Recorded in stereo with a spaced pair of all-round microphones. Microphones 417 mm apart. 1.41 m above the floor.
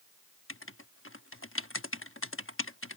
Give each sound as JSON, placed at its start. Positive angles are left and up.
{"t": 0.5, "sound": "writing", "side_deg": 30}